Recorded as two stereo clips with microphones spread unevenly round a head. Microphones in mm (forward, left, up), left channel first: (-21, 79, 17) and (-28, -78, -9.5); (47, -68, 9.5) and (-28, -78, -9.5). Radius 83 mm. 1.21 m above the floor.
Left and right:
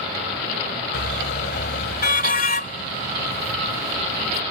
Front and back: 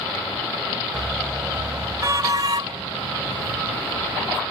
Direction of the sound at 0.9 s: 95° left.